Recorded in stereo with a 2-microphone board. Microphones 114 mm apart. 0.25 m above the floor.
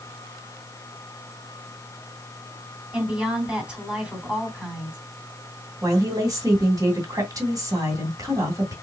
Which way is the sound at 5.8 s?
30° right (ahead or behind).